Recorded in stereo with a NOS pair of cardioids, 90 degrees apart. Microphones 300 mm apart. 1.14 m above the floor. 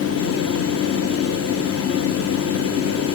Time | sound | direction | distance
0.0 | a fan | 55° left | 1.1 m